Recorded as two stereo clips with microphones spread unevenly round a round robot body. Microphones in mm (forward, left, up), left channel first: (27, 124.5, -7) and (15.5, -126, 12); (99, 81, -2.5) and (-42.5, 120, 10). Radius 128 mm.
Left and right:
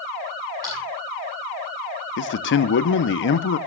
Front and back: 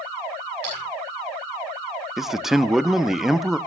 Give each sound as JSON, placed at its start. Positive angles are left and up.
{"t": 0.6, "sound": "a splash", "azimuth_deg": -170, "distance_m": 9.0}
{"t": 2.2, "sound": "a man speaking", "azimuth_deg": 75, "distance_m": 0.8}